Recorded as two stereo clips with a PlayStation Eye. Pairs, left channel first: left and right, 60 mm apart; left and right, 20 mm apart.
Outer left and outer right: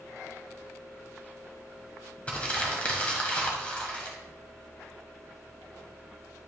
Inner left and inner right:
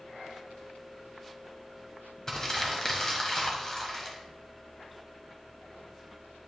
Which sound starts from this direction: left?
Crumpling, at 2.3 s.